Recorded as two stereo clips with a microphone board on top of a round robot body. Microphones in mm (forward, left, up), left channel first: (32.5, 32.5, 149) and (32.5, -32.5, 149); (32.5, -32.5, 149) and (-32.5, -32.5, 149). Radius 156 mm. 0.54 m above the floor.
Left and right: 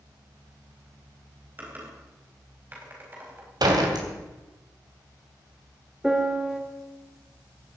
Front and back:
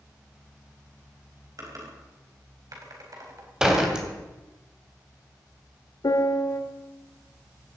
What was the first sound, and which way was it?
Typing on a keyboard, 150° right.